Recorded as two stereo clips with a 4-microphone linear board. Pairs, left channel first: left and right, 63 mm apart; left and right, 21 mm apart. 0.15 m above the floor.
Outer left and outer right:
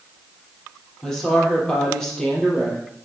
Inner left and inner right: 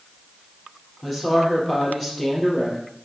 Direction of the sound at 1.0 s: 10° left (ahead or behind).